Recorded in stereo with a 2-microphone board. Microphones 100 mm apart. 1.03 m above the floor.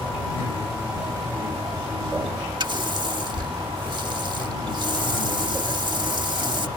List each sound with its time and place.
2.6 s a running tap: 50° right (ahead or behind)